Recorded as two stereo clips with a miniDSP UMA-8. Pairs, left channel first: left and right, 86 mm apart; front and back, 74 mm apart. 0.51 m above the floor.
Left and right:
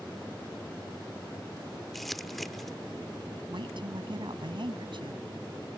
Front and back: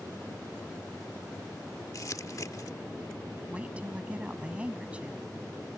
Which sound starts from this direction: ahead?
Crumpling, at 1.9 s.